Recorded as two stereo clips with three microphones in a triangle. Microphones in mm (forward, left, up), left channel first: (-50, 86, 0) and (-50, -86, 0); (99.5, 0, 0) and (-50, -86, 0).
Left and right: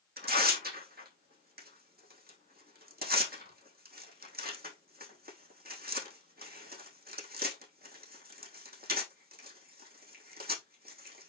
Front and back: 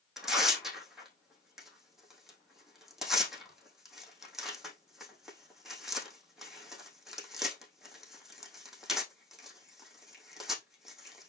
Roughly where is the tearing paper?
Ahead right.